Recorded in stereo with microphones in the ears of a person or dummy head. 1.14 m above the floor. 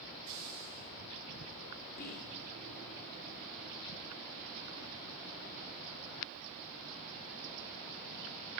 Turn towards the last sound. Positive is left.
turn(degrees=50)  # may be behind; listen again after turning